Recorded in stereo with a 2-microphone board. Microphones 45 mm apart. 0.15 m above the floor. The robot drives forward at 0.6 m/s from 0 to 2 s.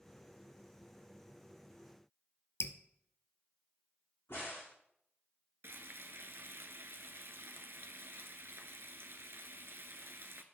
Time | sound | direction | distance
2.6 | dripping | 75° left (ahead or behind) | 0.7 m
4.3 | a crack | 70° left (ahead or behind) | 4.5 m
5.6 | frying | 60° right (ahead or behind) | 0.8 m